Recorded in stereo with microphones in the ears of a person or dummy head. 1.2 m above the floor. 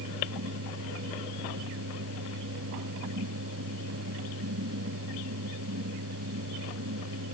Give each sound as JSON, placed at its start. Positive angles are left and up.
{"t": 0.0, "sound": "a fan", "side_deg": -85}